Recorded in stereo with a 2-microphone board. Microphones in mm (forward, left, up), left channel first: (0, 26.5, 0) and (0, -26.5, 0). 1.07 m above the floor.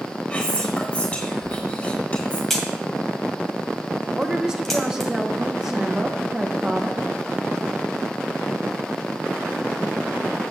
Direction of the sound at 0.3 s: 20° left (ahead or behind).